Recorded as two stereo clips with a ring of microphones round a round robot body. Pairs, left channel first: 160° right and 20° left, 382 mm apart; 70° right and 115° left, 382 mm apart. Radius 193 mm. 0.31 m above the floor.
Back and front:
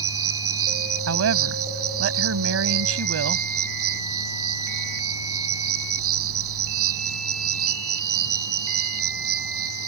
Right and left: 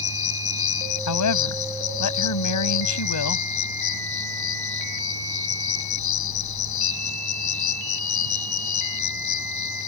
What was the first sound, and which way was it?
An insect, 30° right.